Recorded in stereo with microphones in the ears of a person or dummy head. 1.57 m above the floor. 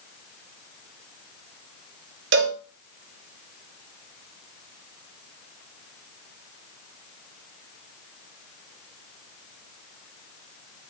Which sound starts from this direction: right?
A cowbell, at 2.3 s.